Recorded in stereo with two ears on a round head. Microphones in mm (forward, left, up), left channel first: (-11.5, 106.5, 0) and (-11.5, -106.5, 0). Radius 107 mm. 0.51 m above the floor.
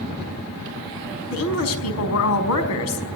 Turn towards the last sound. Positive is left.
turn(degrees=65)  # may be behind; listen again after turning